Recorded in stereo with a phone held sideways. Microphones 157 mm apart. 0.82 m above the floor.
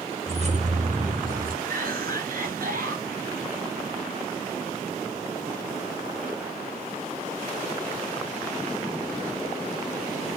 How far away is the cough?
About 5 m.